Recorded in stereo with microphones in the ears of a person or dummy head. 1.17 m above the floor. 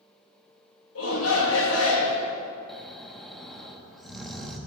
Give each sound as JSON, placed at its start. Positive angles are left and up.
{"t": 0.9, "sound": "a shout", "side_deg": 75, "distance_m": 2.0}
{"t": 2.7, "sound": "snoring", "side_deg": 0, "distance_m": 1.2}